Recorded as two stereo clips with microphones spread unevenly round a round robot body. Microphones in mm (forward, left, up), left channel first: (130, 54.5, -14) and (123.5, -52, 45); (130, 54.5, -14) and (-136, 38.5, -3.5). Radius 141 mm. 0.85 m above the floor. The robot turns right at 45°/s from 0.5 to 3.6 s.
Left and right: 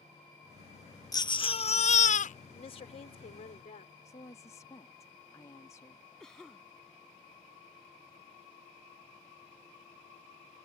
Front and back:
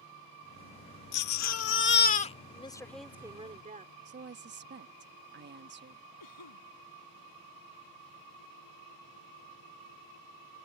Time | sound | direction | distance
1.1 | a baby crying | 20° left | ?
2.5 | a woman speaking | 70° left | ?
4.0 | a woman speaking | 135° left | ?
6.2 | a cough | straight ahead | ?